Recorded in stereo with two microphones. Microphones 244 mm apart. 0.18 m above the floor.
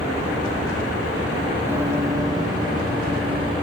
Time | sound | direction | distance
1.7 | running footsteps | 10° right (ahead or behind) | 1.1 m